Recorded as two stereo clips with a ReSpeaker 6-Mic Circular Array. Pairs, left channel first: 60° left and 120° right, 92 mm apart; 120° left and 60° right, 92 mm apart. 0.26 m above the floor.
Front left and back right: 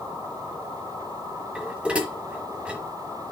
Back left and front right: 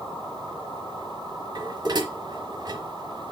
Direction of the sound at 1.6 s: 45° right.